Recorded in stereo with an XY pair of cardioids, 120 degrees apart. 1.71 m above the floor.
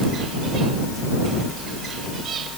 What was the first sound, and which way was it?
Only background noise.